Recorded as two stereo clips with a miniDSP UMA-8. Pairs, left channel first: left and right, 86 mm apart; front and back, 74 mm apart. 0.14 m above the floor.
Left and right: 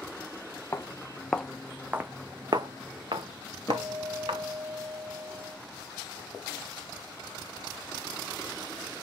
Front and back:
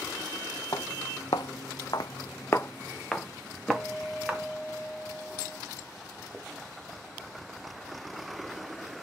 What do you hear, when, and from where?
0.7 s footsteps: 25° left, 0.9 m; by 4.5 s 100° right, 1.4 m
3.7 s a guitar: 50° left, 1.4 m